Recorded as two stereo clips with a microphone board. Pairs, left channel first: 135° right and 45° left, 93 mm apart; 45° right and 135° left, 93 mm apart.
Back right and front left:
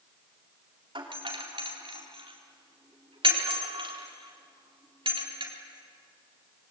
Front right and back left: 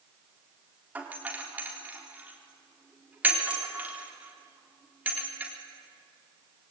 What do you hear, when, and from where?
0.9 s a doorbell: 65° left, 4 m